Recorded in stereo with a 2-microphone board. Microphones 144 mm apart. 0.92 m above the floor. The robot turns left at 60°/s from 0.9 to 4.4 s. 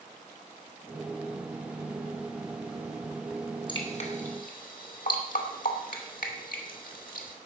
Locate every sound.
3.7 s dripping: 30° left (ahead or behind), 2.5 m; by 7.4 s 75° left (ahead or behind), 2.5 m